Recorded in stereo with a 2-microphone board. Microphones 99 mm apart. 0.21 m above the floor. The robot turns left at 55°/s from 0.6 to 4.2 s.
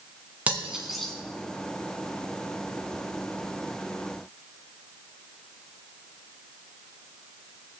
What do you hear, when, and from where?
0.5 s cutlery clinking: 15° right (ahead or behind), 1.4 m; by 1.1 s 10° left (ahead or behind), 1.4 m